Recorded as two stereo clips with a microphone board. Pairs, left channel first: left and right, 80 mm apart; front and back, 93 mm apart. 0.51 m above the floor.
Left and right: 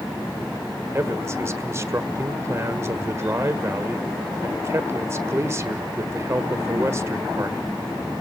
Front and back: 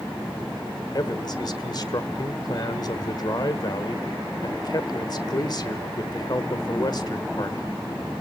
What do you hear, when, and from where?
0.9 s a man speaking: 40° right, 1.4 m